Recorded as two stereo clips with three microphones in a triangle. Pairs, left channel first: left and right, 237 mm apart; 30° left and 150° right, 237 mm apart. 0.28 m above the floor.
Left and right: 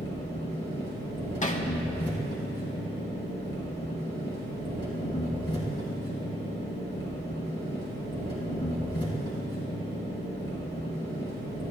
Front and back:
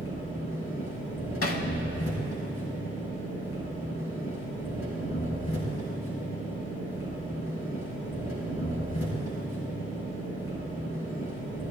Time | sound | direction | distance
0.0 | an engine running | 20° left | 2.5 m
1.4 | hammering | 35° left | 0.6 m